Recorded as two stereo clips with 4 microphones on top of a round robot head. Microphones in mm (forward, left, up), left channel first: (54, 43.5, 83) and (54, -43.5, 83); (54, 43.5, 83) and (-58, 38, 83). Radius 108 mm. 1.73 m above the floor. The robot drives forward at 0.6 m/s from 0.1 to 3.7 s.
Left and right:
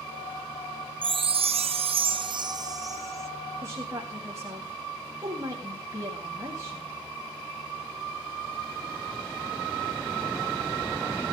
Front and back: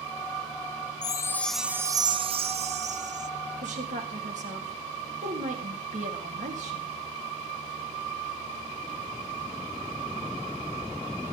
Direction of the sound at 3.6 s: 150° right.